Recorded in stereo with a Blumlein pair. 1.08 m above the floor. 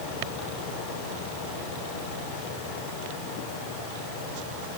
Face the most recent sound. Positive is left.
No sound to turn to.